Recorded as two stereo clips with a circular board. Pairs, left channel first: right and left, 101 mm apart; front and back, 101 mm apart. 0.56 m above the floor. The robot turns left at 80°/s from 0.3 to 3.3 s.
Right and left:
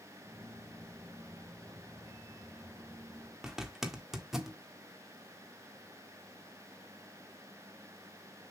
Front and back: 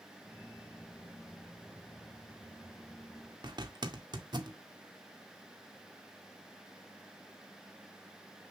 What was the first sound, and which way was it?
A zipper, 175° left.